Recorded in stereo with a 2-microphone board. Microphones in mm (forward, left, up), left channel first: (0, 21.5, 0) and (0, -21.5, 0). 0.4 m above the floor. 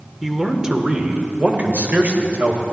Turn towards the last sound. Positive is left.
turn(degrees=-55)  # may be behind; listen again after turning